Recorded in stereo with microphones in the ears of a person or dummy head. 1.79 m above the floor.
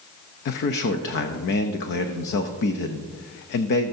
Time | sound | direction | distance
0.5 | a man speaking | 60° left (ahead or behind) | 0.6 m